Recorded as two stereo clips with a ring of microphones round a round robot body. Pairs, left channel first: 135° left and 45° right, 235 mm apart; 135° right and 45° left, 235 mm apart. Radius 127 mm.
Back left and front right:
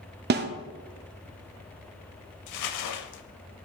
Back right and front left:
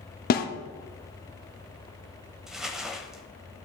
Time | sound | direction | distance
0.3 | a snare drum | 90° right | 0.7 m
2.5 | crumpling | 135° left | 0.7 m